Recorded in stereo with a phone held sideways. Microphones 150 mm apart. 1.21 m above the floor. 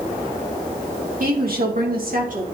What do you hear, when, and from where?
1.2 s a woman speaking: 65° right (ahead or behind), 2 m; by 2.5 s 55° right (ahead or behind), 2 m